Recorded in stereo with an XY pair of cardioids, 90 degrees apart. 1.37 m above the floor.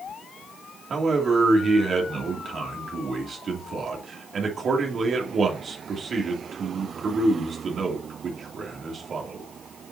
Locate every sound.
0.9 s a man speaking: 55° right, 3 m